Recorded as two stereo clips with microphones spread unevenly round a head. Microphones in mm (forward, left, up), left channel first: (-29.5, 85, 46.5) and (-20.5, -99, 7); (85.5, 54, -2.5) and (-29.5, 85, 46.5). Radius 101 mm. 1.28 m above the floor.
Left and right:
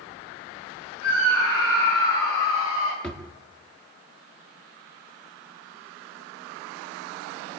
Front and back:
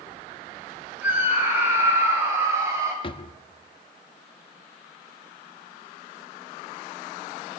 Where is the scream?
90° left, 7 m; by 2.9 s 95° left, 9 m.